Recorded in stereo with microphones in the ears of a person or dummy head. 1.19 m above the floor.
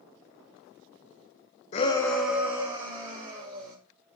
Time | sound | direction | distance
1.7 | a shout | 40° left (ahead or behind) | 0.6 m